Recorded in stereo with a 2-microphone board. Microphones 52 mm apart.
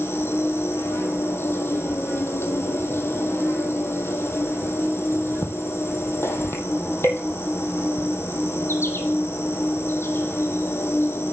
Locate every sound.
0.0 s an insect: 50° left (ahead or behind), 1.7 m